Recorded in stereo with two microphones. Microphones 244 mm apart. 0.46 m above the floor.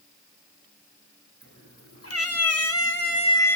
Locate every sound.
1.4 s a cat meowing: 55° left (ahead or behind), 1.2 m; by 3.6 s 5° left (ahead or behind), 0.7 m